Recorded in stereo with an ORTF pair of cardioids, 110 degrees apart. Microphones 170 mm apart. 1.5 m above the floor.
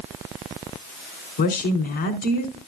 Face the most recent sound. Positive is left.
turn(degrees=65)